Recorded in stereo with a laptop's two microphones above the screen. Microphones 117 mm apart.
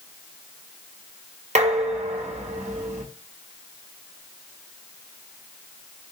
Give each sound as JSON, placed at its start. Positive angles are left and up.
{"t": 1.6, "sound": "dishes clattering", "side_deg": -75, "distance_m": 1.2}